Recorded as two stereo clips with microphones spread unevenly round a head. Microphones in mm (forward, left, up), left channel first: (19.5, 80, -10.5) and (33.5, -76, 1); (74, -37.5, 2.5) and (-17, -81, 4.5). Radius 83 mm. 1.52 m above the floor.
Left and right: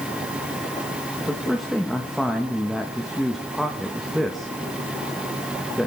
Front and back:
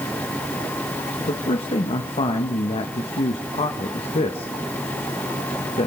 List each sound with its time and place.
1.2 s a man speaking: 5° left, 1.4 m